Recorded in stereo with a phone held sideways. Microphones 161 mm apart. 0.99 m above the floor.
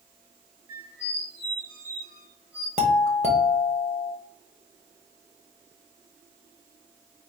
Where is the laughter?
I don't hear laughter.